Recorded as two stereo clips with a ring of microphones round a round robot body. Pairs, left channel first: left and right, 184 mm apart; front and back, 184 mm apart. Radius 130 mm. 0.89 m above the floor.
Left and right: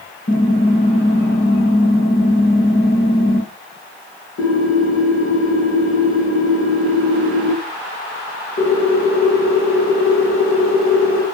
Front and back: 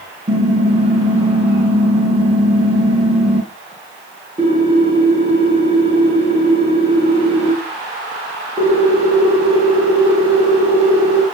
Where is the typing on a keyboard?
120° left, 4.5 m.